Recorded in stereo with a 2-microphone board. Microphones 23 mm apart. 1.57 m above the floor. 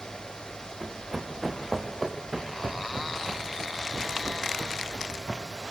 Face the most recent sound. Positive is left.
turn(degrees=-45)  # may be behind; listen again after turning